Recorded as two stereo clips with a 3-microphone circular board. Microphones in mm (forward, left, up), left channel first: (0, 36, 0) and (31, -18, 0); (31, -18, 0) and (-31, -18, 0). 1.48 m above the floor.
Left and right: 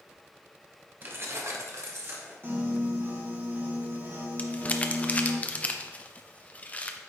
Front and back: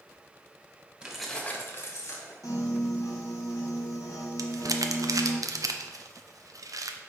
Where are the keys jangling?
110° right, 1.1 m; by 2.3 s 15° right, 1.8 m.